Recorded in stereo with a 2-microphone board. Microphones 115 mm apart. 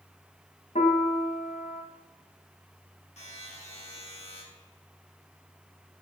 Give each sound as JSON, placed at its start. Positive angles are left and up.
{"t": 0.8, "sound": "a piano", "side_deg": 80, "distance_m": 2.0}
{"t": 3.2, "sound": "a buzzer", "side_deg": 65, "distance_m": 6.0}